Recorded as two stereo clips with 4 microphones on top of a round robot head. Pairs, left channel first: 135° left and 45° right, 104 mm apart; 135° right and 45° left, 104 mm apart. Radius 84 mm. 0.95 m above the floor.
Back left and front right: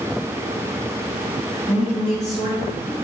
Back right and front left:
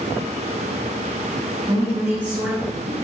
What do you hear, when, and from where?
1.7 s a woman speaking: 125° left, 3.5 m; by 2.9 s 120° left, 3 m